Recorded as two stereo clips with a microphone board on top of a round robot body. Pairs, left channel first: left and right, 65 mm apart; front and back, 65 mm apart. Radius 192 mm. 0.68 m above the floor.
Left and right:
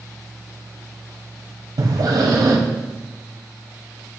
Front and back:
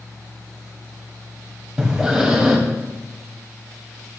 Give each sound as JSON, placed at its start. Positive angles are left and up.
{"t": 1.8, "sound": "breathing", "azimuth_deg": -100, "distance_m": 1.6}